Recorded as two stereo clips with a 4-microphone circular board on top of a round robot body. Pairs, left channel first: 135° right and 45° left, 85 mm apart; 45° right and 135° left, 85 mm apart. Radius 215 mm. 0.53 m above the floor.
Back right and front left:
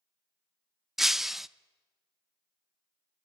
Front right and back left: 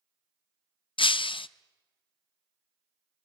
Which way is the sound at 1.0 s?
40° right.